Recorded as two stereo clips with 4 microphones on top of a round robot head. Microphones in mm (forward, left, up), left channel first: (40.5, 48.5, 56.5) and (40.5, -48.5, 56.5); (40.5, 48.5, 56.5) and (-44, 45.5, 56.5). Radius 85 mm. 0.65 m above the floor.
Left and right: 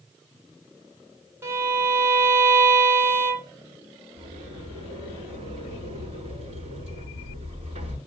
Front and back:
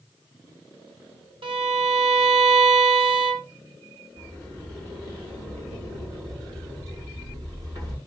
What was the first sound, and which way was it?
A violin, 160° right.